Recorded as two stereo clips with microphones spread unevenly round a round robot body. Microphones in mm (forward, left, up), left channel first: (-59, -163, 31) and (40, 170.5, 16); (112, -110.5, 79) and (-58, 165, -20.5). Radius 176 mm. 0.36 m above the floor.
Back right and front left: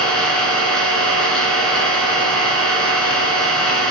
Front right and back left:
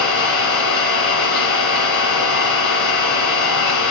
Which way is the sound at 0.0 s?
20° right.